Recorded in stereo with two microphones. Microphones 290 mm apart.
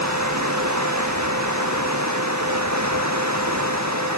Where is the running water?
80° right.